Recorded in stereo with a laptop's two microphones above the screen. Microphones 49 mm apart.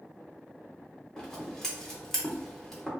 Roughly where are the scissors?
Centre.